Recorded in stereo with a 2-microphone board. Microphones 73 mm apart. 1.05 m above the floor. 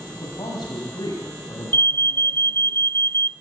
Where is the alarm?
30° left (ahead or behind), 0.7 m.